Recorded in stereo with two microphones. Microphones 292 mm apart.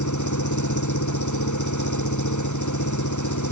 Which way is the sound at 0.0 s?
85° left.